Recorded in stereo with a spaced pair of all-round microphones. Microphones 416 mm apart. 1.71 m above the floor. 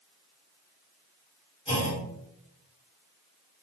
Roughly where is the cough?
I don't hear a cough.